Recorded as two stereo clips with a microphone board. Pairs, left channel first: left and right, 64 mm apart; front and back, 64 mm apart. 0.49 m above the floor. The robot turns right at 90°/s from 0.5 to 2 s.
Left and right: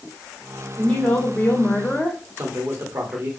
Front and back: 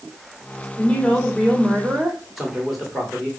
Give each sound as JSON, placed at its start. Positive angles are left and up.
{"t": 0.8, "sound": "a woman speaking", "azimuth_deg": 15, "distance_m": 1.2}
{"t": 2.4, "sound": "a man speaking", "azimuth_deg": -95, "distance_m": 1.7}